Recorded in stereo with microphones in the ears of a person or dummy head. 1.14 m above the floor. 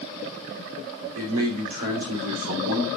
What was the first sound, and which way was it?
A man speaking, 75° right (ahead or behind).